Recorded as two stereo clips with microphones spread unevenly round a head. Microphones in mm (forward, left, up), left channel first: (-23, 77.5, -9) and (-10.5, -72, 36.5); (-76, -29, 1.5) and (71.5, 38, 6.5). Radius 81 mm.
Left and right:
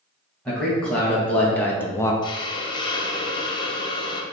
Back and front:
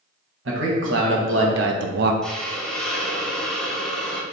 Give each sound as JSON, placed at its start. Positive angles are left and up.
{"t": 0.5, "sound": "a man speaking", "azimuth_deg": 15, "distance_m": 1.4}
{"t": 2.2, "sound": "a hiss", "azimuth_deg": 120, "distance_m": 0.6}